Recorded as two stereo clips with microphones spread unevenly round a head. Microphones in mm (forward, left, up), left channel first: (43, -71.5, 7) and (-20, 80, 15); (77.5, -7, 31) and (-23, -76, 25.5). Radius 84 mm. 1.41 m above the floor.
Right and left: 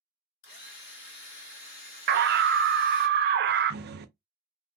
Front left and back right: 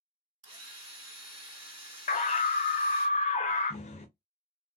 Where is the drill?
100° right, 1.9 m.